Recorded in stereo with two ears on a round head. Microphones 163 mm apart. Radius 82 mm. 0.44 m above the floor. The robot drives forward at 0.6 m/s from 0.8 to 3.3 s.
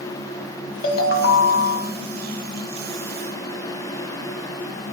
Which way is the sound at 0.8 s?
50° left (ahead or behind).